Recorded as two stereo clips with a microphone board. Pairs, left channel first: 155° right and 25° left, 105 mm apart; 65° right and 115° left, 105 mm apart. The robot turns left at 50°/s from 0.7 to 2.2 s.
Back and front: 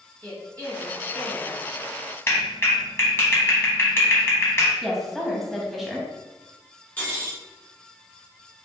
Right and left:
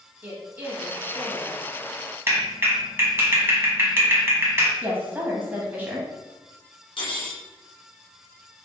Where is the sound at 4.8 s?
115° left, 0.9 m.